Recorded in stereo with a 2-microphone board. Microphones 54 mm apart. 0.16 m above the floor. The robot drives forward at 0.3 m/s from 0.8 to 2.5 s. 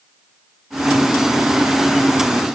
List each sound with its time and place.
Only background noise.